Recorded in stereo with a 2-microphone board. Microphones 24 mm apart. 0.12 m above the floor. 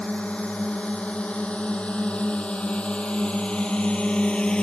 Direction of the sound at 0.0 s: 55° left (ahead or behind).